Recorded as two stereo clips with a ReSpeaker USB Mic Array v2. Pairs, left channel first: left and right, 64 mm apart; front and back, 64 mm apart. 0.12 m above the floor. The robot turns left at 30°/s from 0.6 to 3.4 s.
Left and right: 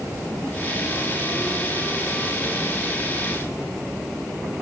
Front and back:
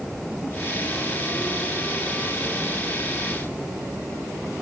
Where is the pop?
No pop in this recording.